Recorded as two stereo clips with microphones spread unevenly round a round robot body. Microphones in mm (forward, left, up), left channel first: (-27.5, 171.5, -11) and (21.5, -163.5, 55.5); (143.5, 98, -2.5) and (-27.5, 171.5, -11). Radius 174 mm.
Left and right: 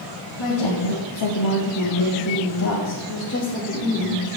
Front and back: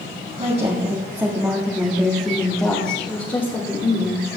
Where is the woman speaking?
100° left, 1.8 m; by 4.4 s 30° left, 3 m.